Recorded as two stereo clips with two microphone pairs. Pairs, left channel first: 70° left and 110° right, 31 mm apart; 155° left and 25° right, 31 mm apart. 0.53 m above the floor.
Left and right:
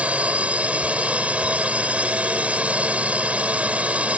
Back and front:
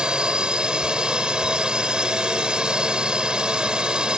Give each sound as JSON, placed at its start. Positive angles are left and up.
{"t": 0.0, "sound": "a drone", "azimuth_deg": -80}